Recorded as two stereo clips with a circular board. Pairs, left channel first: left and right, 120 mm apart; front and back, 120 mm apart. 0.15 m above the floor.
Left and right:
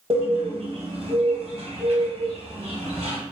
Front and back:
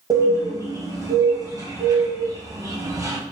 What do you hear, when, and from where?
0.1 s a bird: 120° right, 1.2 m